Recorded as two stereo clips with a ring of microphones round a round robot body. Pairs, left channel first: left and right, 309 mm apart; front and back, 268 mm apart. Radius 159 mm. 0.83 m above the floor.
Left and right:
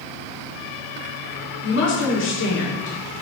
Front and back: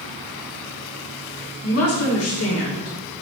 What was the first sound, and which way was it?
A woman speaking, 35° left.